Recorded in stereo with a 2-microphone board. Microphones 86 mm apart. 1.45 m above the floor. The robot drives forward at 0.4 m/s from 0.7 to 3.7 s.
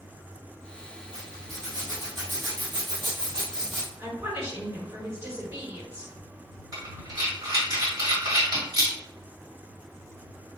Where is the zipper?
40° right (ahead or behind), 1.6 m; by 3.9 s 50° right (ahead or behind), 1.4 m.